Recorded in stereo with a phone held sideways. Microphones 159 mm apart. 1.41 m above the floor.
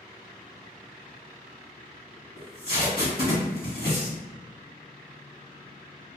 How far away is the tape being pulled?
About 1.5 m.